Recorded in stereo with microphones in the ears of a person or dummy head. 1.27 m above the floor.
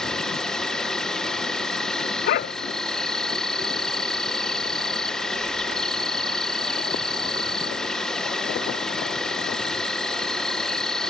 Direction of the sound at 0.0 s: 5° left (ahead or behind).